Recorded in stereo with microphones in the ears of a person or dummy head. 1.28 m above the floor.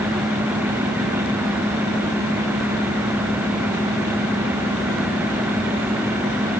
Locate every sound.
Only background noise.